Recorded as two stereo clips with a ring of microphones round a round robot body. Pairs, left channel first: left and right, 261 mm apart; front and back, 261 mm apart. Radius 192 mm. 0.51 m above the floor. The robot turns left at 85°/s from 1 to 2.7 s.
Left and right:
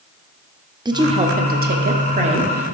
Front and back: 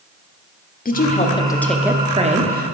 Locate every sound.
0.8 s a woman speaking: 25° right, 1.1 m; by 2.8 s 170° right, 1.1 m